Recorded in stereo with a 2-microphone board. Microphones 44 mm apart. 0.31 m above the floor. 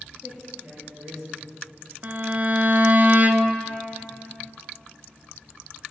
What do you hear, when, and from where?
0.2 s a man speaking: 15° right (ahead or behind), 4 m
2.0 s a violin: 40° right (ahead or behind), 0.6 m